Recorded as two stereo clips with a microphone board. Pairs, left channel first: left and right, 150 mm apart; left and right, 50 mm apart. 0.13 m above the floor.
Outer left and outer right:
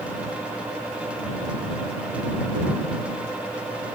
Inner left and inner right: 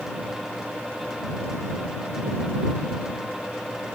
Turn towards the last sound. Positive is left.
No sound to turn to.